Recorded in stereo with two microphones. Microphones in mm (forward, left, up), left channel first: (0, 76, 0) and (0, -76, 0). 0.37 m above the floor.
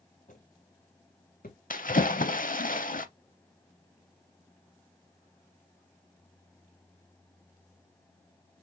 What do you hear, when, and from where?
0.3 s footsteps: 60° left (ahead or behind), 2 m; by 1.6 s 75° left (ahead or behind), 1.1 m
1.7 s a splash: 65° left (ahead or behind), 0.6 m